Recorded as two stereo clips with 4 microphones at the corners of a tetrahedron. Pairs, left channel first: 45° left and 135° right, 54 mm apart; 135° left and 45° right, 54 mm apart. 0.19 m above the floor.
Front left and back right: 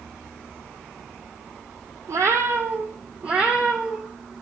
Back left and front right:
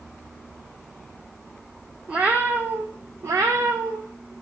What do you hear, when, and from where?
2.1 s a cat meowing: 115° right, 0.8 m; by 4.3 s 45° right, 1.3 m